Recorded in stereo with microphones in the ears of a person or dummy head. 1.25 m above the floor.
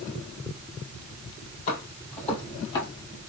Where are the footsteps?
45° left (ahead or behind), 2 m; by 2.9 s 30° left (ahead or behind), 2 m.